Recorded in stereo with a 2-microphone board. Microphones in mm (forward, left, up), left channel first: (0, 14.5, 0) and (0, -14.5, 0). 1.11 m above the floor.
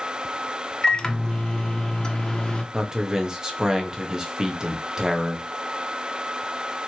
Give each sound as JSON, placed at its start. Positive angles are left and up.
{"t": 0.8, "sound": "a microwave", "side_deg": 25, "distance_m": 0.7}
{"t": 2.7, "sound": "a man speaking", "side_deg": -20, "distance_m": 1.0}